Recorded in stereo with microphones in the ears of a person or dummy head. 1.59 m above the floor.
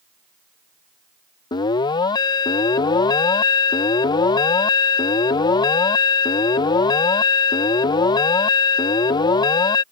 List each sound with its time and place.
1.5 s an alarm: 20° left (ahead or behind)